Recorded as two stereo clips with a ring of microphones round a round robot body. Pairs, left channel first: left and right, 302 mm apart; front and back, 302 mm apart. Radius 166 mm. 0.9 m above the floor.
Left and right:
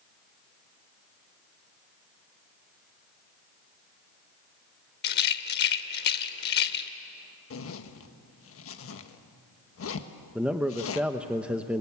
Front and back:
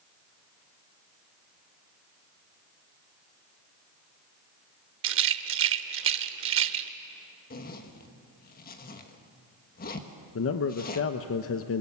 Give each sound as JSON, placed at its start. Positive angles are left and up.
{"t": 5.0, "sound": "a rattle", "azimuth_deg": 140, "distance_m": 0.7}
{"t": 7.5, "sound": "a zipper", "azimuth_deg": 55, "distance_m": 1.4}
{"t": 10.3, "sound": "a man speaking", "azimuth_deg": -5, "distance_m": 0.9}